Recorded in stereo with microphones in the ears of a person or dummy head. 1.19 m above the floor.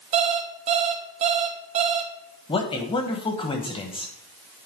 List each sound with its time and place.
0.1 s an alarm clock: 35° right (ahead or behind), 0.7 m
2.5 s a man speaking: 30° left (ahead or behind), 0.9 m